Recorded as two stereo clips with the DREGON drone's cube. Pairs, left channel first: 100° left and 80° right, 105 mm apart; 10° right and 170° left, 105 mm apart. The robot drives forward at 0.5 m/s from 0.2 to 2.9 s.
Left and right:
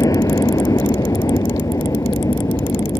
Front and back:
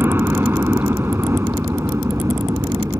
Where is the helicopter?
120° left; by 3.0 s 130° left.